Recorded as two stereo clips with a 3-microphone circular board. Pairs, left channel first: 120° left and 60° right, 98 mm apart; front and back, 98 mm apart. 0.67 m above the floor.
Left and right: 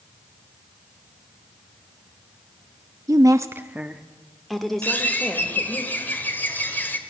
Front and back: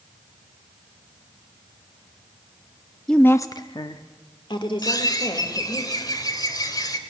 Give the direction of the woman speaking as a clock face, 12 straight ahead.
3 o'clock.